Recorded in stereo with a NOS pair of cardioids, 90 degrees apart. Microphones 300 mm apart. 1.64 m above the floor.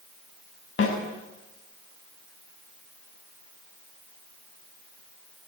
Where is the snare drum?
45° left, 6 m.